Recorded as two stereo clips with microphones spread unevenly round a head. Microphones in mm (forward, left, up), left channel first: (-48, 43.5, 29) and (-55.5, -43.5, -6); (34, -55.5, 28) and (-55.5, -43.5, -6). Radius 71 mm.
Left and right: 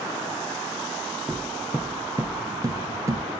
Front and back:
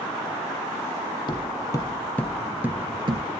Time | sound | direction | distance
1.3 | footsteps | straight ahead | 2.5 m